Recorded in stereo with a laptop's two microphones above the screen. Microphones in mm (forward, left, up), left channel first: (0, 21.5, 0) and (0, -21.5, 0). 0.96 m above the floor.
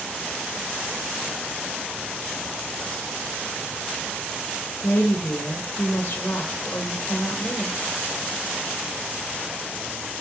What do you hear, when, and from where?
4.8 s a woman speaking: 55° left (ahead or behind), 0.7 m